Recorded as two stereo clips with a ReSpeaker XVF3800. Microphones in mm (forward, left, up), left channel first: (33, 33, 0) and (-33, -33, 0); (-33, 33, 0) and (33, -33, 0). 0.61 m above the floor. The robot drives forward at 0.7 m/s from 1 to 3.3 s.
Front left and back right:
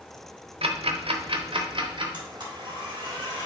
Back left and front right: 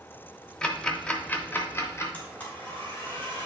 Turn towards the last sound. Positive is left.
turn(degrees=-160)